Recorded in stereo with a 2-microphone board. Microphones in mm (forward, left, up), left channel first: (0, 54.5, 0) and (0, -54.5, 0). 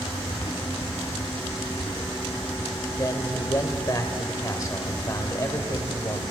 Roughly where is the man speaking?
Left.